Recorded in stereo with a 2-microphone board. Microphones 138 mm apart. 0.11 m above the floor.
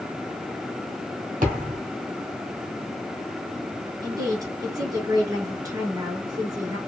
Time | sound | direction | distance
1.4 | a thud | 65° right (ahead or behind) | 1.6 m
4.0 | a woman speaking | 25° right (ahead or behind) | 1.3 m